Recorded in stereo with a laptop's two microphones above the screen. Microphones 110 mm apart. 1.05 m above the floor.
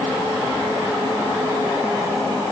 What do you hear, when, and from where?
Only background noise.